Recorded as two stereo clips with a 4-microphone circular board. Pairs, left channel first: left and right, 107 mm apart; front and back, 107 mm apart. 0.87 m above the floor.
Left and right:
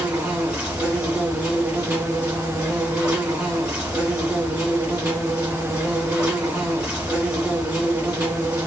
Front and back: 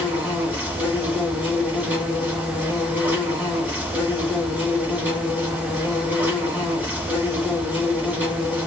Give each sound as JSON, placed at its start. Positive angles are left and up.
{"t": 0.0, "sound": "an insect", "azimuth_deg": -145, "distance_m": 1.5}